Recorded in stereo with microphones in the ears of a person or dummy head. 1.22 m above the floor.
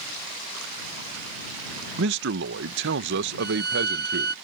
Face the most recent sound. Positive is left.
turn(degrees=-45)  # may be behind; listen again after turning